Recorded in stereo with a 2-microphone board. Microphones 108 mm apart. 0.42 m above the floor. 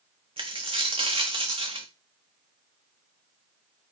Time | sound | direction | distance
0.4 | a dropped coin | 65° right (ahead or behind) | 1.3 m